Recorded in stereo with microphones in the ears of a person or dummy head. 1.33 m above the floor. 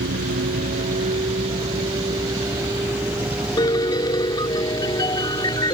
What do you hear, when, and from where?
0.0 s a vehicle: 50° right (ahead or behind); by 5.7 s 5° left (ahead or behind)
3.6 s a piano: 20° left (ahead or behind)